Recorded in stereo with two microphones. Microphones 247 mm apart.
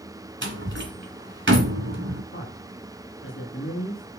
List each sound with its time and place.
0.4 s a door slam: 50° right (ahead or behind), 1.7 m
2.3 s a man speaking: 55° left (ahead or behind), 2.5 m